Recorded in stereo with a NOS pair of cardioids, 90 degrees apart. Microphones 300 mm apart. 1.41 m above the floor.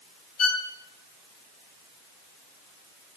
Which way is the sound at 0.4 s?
55° left.